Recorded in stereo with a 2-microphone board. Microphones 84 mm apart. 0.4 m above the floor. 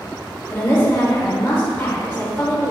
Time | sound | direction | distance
0.5 | a woman speaking | 30° left (ahead or behind) | 1.5 m